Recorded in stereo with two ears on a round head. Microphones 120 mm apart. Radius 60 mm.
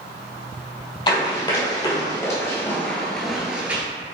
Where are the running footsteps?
35° left (ahead or behind), 1.8 m; by 3.8 s 15° right (ahead or behind), 1.0 m.